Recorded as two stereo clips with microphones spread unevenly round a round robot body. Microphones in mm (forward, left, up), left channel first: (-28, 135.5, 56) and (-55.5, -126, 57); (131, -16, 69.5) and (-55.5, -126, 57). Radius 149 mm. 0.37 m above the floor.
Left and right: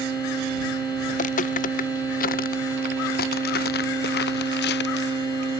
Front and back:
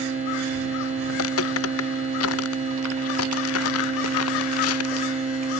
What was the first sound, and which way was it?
Footsteps, 20° left.